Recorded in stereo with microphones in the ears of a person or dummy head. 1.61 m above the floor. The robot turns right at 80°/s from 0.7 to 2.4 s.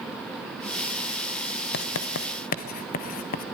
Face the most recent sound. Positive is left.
turn(degrees=40)  # may be behind; listen again after turning